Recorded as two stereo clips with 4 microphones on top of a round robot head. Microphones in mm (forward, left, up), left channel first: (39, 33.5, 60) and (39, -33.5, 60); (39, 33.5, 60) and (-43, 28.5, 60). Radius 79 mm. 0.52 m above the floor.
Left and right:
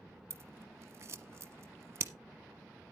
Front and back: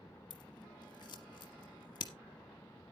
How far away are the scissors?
About 1.3 m.